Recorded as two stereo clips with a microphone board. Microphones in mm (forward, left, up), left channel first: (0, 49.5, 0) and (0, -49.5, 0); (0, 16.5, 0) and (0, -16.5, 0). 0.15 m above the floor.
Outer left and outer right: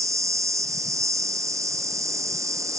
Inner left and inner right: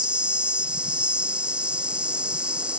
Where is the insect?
30° right (ahead or behind).